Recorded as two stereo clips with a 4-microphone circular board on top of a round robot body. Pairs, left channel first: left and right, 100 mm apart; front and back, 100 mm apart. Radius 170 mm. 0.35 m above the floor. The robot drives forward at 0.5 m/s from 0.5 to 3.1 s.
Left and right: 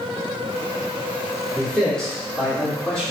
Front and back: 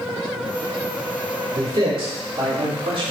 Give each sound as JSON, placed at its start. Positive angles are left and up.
{"t": 1.5, "sound": "a man speaking", "azimuth_deg": 170, "distance_m": 2.0}